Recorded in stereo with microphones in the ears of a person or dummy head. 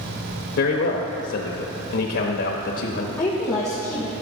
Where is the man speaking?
70° left (ahead or behind), 0.9 m.